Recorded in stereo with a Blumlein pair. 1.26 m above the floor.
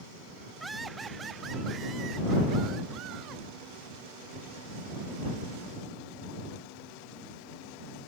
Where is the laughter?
5° right; by 3.4 s 35° right.